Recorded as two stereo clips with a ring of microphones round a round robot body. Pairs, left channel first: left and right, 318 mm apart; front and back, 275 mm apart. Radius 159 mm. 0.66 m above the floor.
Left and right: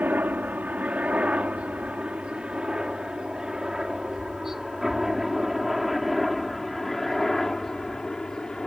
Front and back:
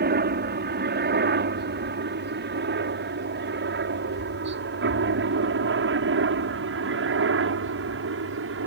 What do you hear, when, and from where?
0.0 s a helicopter: 170° right; by 8.7 s 175° left